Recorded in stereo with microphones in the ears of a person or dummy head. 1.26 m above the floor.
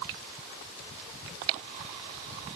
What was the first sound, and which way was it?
Only background noise.